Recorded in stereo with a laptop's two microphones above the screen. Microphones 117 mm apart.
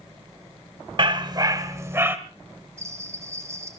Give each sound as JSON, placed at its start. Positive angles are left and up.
{"t": 1.0, "sound": "a dog barking", "side_deg": -45, "distance_m": 0.9}
{"t": 2.8, "sound": "a bell", "side_deg": -25, "distance_m": 2.5}